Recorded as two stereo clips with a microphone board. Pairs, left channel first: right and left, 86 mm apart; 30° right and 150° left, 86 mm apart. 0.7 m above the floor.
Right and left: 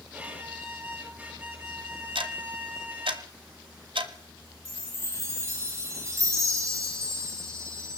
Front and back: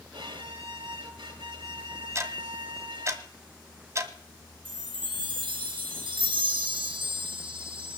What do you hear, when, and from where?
0.1 s a violin: 165° left, 9 m
2.1 s ticking: 95° left, 1.5 m
4.7 s a chime: 145° left, 3 m